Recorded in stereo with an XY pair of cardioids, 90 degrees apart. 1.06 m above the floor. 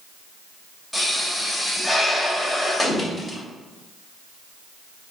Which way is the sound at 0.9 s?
10° left.